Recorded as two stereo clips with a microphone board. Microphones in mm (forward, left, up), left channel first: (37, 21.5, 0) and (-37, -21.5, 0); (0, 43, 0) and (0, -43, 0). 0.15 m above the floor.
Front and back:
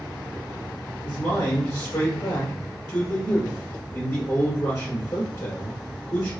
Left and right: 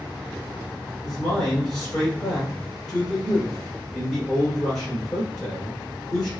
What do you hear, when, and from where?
1.0 s a man speaking: straight ahead, 1.4 m